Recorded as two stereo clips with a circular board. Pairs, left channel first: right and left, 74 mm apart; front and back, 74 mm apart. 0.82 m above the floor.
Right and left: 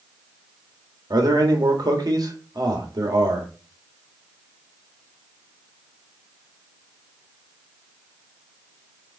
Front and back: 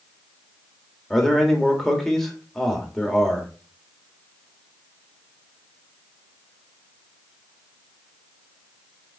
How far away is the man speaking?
About 1.8 m.